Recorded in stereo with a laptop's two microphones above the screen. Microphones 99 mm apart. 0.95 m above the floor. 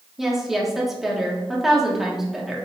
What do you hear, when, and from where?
0.2 s a woman speaking: 5° right (ahead or behind), 1.2 m